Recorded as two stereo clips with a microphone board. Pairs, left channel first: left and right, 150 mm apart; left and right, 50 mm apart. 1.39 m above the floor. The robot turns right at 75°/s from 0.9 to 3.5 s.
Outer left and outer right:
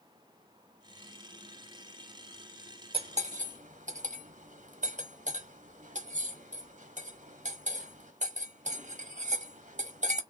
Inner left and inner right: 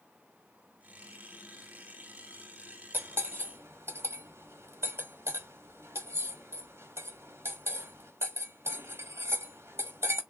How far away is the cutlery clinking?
About 1.1 m.